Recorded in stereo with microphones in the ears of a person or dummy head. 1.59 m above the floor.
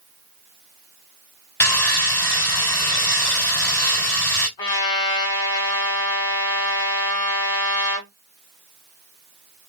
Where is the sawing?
5° left (ahead or behind), 3 m.